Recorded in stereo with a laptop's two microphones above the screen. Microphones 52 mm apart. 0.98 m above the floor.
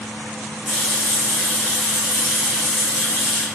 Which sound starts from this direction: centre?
A running tap, at 0.7 s.